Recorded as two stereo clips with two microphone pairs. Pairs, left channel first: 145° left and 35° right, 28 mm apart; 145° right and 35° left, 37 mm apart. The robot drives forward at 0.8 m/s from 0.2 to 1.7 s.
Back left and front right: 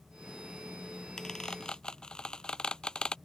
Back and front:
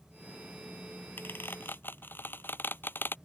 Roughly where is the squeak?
Behind right.